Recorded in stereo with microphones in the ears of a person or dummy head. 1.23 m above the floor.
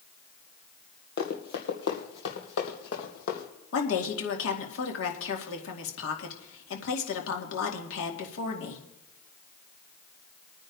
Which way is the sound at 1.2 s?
50° left (ahead or behind).